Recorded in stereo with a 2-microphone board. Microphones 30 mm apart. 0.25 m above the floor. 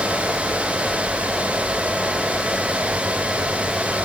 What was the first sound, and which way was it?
Only background noise.